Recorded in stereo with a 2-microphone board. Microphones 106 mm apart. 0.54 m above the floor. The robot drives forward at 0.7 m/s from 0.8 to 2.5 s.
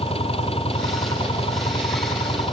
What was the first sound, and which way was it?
An engine running, 65° left (ahead or behind).